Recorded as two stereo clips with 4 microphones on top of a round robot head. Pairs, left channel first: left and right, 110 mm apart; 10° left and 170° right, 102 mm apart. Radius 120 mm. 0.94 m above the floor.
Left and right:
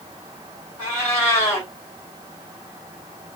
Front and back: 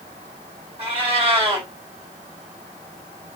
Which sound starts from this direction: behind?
A cat meowing, at 0.8 s.